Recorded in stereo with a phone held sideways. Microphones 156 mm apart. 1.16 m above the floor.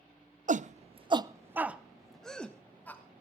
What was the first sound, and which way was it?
A shout, 55° right (ahead or behind).